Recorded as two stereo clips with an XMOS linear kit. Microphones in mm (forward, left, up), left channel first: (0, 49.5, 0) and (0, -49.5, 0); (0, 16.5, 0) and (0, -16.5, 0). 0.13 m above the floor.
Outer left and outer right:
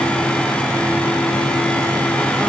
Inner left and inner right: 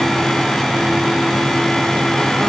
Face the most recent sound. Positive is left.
No sound to turn to.